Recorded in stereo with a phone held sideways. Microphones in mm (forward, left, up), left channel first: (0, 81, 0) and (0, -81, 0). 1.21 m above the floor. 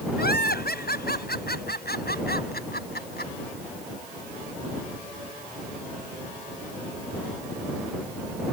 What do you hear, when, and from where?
0.2 s laughter: 85° left; by 3.3 s 90° left